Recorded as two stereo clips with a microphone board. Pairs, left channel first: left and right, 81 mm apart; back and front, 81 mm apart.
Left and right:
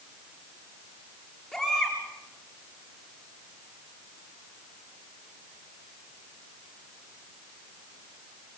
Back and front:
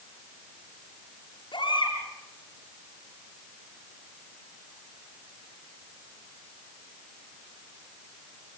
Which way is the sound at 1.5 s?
Straight behind.